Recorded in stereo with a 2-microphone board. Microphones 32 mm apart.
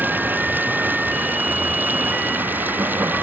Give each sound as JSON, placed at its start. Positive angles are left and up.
{"t": 0.0, "sound": "running water", "side_deg": -80}